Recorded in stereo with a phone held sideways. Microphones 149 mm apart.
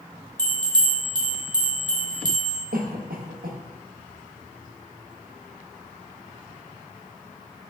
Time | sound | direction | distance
0.4 | a bell | 30° right (ahead or behind) | 0.9 m
2.7 | a cough | 75° right (ahead or behind) | 0.8 m